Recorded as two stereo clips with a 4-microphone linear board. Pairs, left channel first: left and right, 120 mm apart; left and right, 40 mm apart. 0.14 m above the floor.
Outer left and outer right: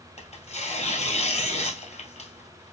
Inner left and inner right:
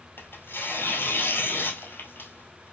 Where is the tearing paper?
60° left (ahead or behind), 1.2 m.